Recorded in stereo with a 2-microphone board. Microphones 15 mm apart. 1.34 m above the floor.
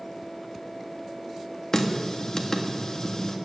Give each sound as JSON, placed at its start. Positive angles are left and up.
{"t": 1.7, "sound": "a running tap", "side_deg": 40, "distance_m": 1.7}